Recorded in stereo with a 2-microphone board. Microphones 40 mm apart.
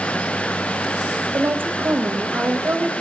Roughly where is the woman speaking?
Right.